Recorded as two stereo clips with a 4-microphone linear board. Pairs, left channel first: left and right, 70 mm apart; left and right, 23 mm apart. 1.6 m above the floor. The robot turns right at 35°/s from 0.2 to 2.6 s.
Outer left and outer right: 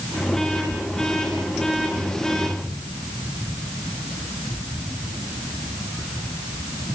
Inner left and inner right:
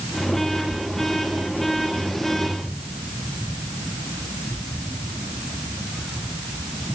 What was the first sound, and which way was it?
Only background noise.